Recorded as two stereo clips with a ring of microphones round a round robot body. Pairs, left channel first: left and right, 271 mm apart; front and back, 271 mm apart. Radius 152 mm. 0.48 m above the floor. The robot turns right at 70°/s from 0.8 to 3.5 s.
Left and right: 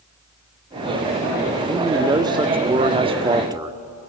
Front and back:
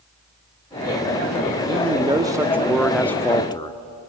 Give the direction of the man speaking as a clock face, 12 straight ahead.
6 o'clock.